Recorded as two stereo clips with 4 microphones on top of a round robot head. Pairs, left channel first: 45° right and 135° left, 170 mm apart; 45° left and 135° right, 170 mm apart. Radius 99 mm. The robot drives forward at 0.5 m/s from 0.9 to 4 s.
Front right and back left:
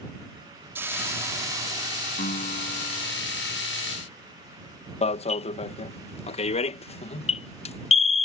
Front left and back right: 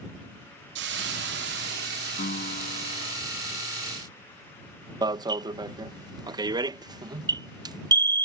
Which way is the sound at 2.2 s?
5° left.